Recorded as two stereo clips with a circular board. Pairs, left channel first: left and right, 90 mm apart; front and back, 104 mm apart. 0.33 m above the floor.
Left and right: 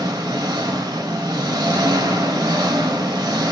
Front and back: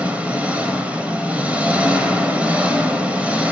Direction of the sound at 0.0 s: 110° right.